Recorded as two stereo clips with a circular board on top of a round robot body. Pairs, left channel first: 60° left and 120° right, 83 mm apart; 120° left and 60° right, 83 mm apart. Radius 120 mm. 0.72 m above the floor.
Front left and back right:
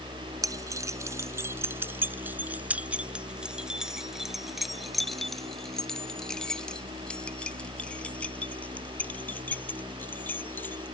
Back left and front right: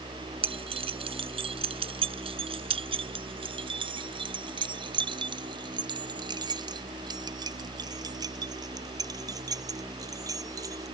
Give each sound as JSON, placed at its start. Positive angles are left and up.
{"t": 0.4, "sound": "keys jangling", "azimuth_deg": -70}